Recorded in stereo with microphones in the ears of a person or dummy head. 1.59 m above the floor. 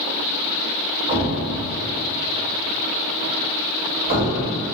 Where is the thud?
40° right (ahead or behind), 1.6 m.